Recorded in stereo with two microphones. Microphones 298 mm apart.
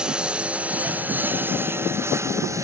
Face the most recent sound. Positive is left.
turn(degrees=-10)  # may be behind; listen again after turning